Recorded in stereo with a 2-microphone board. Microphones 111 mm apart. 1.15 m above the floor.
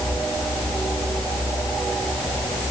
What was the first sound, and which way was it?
Only background noise.